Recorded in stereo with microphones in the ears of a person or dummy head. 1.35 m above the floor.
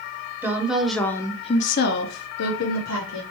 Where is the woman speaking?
15° right (ahead or behind), 1.0 m; by 3.2 s 75° left (ahead or behind), 1.3 m.